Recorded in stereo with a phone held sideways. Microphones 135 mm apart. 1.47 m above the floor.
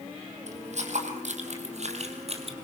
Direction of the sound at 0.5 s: 60° right (ahead or behind).